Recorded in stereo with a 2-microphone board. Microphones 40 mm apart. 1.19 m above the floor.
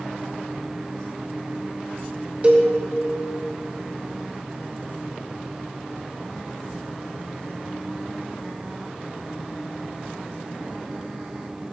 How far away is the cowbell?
About 0.9 m.